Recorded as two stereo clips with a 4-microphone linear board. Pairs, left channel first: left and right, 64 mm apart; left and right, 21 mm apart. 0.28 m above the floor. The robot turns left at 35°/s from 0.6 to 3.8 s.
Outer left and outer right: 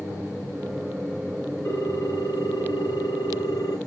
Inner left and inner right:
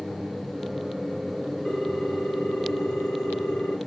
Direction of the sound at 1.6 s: 140° left.